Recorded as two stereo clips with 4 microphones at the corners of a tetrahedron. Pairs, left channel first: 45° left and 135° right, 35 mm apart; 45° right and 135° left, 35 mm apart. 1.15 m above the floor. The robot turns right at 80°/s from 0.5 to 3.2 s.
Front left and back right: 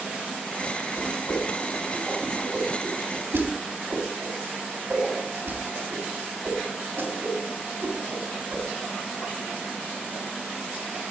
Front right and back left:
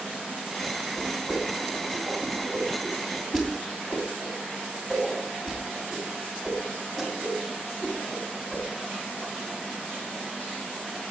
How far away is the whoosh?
About 3 m.